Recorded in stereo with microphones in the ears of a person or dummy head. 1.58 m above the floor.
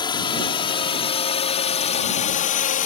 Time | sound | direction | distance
0.0 | a drone | 20° left (ahead or behind) | ?